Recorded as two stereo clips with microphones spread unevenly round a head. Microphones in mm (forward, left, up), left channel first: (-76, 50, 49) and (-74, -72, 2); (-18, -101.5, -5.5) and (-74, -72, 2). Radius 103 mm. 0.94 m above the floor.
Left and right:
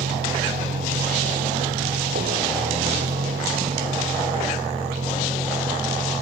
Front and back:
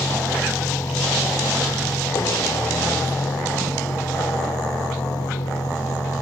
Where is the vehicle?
75° right; by 6.2 s 25° right.